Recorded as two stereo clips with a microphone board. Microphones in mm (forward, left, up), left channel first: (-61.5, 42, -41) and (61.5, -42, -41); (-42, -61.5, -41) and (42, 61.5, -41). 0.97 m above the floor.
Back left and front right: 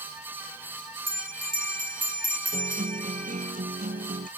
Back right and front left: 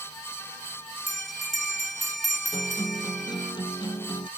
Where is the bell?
35° right.